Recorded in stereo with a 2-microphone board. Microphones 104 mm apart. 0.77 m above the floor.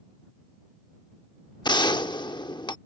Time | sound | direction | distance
1.6 | a gunshot | 45° left (ahead or behind) | ?